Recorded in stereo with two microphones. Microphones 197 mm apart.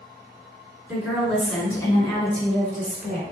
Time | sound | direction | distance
0.9 | a woman speaking | 5° right (ahead or behind) | 2.5 m